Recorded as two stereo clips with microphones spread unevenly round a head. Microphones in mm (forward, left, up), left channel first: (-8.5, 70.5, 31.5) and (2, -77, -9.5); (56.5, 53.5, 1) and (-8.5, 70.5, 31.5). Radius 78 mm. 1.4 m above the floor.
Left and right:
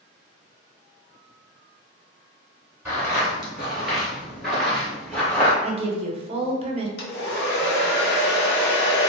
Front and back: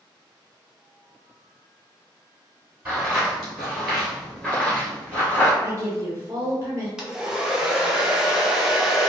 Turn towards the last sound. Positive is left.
turn(degrees=90)